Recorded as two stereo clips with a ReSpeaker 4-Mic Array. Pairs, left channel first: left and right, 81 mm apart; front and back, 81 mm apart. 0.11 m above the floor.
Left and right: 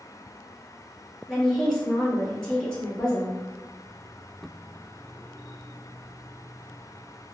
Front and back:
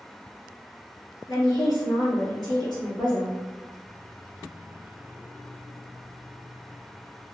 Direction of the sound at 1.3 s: 10° left.